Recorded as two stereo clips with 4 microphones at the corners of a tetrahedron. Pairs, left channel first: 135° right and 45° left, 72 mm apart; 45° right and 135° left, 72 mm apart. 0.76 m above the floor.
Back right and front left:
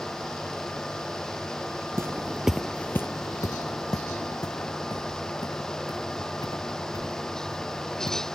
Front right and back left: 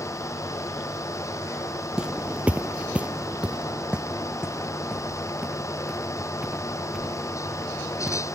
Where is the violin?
No violin in this recording.